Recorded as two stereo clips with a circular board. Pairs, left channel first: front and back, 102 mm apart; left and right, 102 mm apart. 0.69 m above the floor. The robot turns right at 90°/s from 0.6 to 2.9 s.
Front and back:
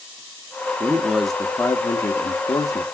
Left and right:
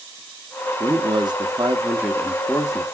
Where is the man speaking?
130° right, 0.9 m; by 2.8 s 55° left, 0.9 m.